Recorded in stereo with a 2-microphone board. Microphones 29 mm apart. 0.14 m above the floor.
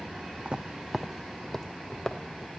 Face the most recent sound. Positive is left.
turn(degrees=30)  # may be behind; listen again after turning